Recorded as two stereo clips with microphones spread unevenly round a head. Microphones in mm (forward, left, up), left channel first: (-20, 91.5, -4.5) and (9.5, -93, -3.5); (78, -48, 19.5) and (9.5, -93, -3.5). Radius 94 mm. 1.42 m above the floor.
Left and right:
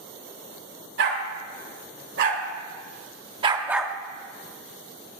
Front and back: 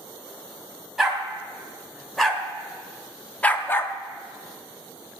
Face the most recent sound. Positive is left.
turn(degrees=25)